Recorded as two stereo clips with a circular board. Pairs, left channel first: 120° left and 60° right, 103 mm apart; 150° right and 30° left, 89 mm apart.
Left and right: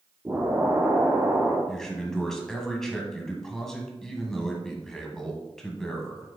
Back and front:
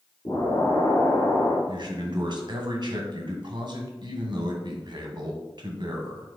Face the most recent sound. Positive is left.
turn(degrees=35)